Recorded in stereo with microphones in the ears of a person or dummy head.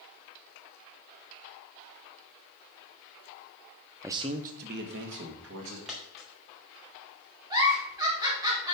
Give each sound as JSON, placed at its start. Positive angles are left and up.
{"t": 4.0, "sound": "a man speaking", "side_deg": -15, "distance_m": 0.8}
{"t": 5.9, "sound": "a dropped coin", "side_deg": -5, "distance_m": 2.0}
{"t": 7.5, "sound": "a giggle", "side_deg": -25, "distance_m": 2.5}